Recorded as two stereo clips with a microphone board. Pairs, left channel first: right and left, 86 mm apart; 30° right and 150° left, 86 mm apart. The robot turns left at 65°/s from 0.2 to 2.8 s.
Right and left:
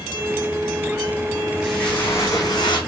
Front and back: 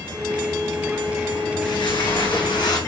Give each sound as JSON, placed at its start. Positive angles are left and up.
{"t": 1.6, "sound": "footsteps", "azimuth_deg": 0, "distance_m": 4.0}